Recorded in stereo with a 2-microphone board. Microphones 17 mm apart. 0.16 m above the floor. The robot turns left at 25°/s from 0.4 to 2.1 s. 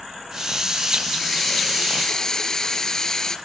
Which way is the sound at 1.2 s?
10° left (ahead or behind).